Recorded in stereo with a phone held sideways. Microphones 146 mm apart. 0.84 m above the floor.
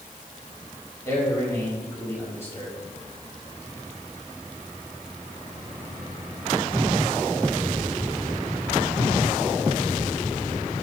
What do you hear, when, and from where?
1.1 s a man speaking: 15° left (ahead or behind), 5 m